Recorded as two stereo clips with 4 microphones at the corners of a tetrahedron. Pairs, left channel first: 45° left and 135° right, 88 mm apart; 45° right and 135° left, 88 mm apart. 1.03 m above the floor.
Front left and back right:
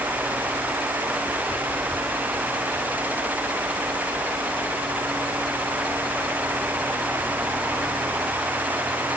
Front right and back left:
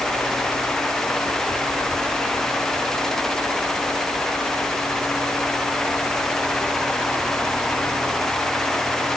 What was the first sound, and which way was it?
Only background noise.